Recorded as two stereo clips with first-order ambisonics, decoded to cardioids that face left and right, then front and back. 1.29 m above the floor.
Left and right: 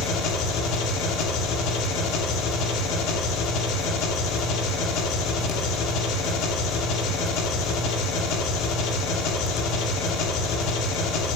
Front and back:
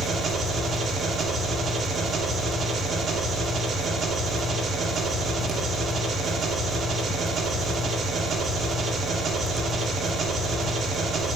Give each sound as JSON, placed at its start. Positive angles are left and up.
{"t": 0.0, "sound": "an engine running", "azimuth_deg": 110, "distance_m": 1.7}